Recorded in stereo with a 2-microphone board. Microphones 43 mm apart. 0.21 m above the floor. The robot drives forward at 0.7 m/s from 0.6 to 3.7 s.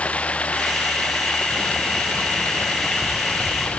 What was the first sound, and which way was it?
Running water, 30° left (ahead or behind).